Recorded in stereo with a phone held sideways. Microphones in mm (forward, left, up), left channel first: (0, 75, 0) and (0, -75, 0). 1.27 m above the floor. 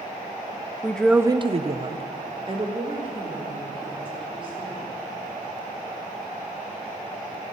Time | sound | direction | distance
0.8 | a woman speaking | 15° left (ahead or behind) | 0.8 m